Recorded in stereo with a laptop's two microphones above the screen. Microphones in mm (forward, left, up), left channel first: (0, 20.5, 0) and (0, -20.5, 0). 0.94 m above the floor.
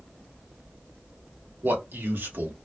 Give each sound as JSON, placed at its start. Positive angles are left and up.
{"t": 1.6, "sound": "a man speaking", "side_deg": -60, "distance_m": 1.0}